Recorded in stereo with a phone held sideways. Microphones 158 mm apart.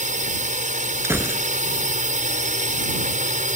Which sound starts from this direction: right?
A drone, at 0.0 s.